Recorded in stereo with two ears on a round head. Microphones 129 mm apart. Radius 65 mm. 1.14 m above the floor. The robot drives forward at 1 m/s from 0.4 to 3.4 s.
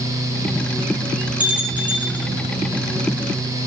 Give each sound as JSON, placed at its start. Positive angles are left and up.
{"t": 1.4, "sound": "a bell", "side_deg": -10, "distance_m": 4.5}